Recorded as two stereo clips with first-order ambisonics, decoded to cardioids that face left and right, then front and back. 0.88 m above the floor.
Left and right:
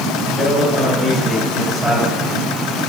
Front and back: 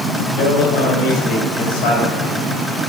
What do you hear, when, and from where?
0.4 s a man speaking: 5° left, 4.5 m